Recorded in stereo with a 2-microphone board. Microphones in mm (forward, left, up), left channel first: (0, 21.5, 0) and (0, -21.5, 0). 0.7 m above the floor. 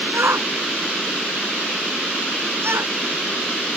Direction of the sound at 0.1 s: 85° right.